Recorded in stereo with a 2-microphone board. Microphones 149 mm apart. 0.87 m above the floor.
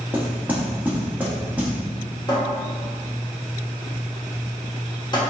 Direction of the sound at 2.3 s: 30° left (ahead or behind).